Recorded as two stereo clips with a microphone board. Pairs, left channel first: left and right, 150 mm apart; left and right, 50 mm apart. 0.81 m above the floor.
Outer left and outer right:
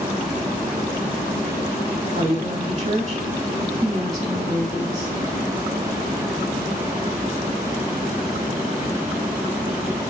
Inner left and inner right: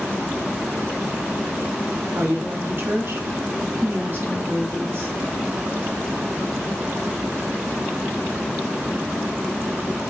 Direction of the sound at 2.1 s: 45° right (ahead or behind).